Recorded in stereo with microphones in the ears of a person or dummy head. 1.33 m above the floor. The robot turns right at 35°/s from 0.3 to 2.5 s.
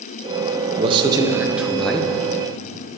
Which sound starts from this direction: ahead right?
A man speaking, at 0.8 s.